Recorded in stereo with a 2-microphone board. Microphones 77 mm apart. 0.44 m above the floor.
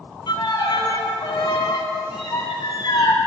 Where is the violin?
70° left (ahead or behind), 1.6 m.